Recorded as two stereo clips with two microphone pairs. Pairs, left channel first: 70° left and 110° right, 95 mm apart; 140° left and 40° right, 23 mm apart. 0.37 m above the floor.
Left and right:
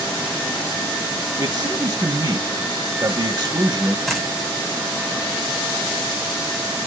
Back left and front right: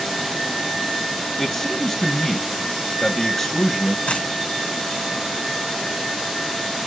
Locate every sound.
1.4 s a man speaking: 160° right, 1.9 m
4.1 s a dropped coin: 155° left, 5 m